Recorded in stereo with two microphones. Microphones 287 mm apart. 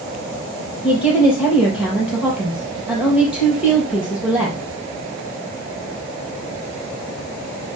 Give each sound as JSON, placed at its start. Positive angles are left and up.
{"t": 0.8, "sound": "a woman speaking", "side_deg": -5, "distance_m": 4.5}